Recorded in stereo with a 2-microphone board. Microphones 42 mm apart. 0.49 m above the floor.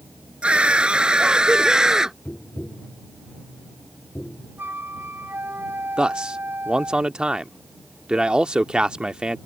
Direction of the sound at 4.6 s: 55° right (ahead or behind).